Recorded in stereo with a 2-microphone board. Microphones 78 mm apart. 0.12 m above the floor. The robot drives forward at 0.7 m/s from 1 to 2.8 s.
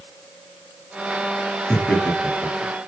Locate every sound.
1.7 s laughter: 15° left (ahead or behind), 2.5 m